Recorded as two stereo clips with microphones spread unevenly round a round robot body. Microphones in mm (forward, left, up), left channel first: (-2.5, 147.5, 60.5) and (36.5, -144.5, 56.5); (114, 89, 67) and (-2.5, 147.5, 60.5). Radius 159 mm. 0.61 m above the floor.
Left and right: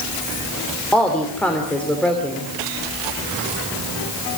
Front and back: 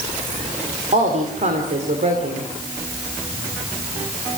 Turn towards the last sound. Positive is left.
turn(degrees=-175)